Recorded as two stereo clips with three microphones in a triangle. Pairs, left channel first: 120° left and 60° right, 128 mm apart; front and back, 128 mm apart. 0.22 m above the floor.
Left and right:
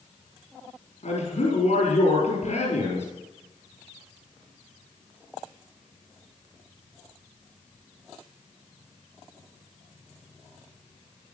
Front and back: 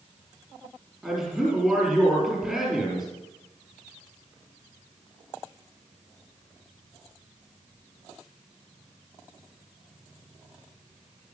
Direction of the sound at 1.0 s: 95° left.